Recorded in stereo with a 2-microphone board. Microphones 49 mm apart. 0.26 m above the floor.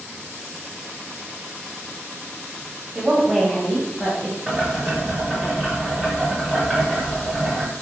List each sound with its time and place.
3.0 s a woman speaking: 15° right (ahead or behind), 1.1 m; by 4.4 s 45° left (ahead or behind), 1.4 m
4.5 s boiling: 10° left (ahead or behind), 1.7 m